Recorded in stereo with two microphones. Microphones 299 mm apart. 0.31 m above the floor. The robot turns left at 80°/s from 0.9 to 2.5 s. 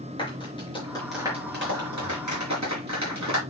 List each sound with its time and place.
0.2 s a clap: 15° left (ahead or behind), 5 m; by 3.4 s 65° right (ahead or behind), 5 m